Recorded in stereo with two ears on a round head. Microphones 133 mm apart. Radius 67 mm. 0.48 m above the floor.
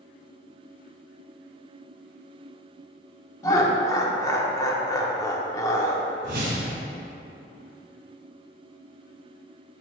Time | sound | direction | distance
3.4 | laughter | 20° left (ahead or behind) | 0.7 m
6.2 | a whoosh | 60° right (ahead or behind) | 2 m